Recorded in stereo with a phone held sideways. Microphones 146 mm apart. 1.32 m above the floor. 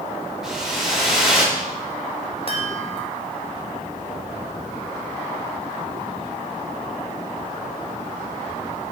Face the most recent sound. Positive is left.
turn(degrees=40)  # may be behind; listen again after turning